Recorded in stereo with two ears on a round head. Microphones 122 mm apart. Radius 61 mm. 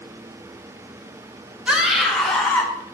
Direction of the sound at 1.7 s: 5° right (ahead or behind).